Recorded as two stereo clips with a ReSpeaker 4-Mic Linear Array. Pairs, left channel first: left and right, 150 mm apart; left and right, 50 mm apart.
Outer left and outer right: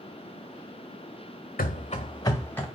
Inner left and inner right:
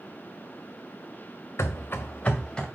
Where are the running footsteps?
70° left (ahead or behind), 0.5 m; by 2.6 s 10° left (ahead or behind), 1.0 m.